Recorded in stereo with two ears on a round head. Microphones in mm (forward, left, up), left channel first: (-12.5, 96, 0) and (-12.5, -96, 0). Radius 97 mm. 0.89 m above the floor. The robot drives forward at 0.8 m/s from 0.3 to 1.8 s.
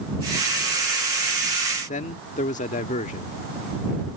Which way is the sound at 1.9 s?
35° left (ahead or behind).